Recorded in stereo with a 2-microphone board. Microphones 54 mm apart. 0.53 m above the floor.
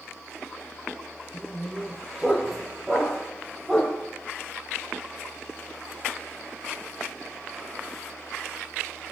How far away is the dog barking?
About 8.5 m.